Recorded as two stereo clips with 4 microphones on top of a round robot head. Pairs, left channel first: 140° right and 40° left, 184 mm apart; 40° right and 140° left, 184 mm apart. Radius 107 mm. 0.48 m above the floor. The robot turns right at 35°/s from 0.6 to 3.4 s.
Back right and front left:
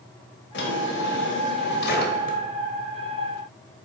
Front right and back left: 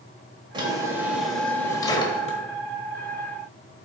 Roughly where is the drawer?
Behind right.